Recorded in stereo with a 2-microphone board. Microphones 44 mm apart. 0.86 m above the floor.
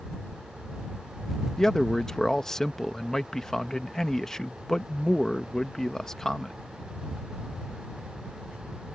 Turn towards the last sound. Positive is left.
turn(degrees=15)  # may be behind; listen again after turning